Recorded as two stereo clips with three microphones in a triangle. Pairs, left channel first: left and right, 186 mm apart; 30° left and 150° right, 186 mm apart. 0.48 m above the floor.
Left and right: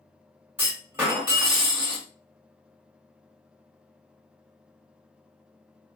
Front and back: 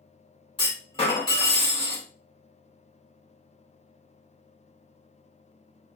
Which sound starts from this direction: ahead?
A clunk, at 0.6 s.